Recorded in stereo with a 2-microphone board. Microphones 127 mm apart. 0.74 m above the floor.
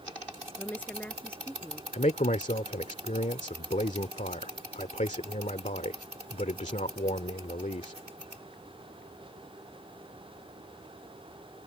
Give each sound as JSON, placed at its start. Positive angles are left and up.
{"t": 0.6, "sound": "a woman speaking", "side_deg": 15}
{"t": 1.9, "sound": "a man speaking", "side_deg": 70}